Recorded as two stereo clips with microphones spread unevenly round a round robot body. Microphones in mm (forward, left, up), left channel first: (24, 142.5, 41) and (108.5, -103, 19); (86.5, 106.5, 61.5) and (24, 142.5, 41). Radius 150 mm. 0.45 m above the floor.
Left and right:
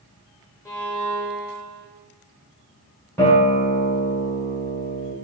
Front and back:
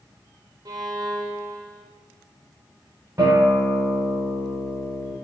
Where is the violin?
170° right, 0.7 m.